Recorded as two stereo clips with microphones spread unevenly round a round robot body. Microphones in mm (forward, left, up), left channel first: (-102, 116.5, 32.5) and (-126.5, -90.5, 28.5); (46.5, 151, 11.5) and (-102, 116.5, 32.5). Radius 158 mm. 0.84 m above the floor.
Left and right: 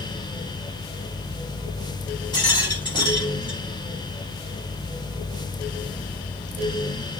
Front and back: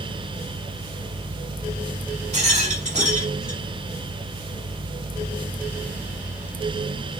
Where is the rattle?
150° left, 4 m.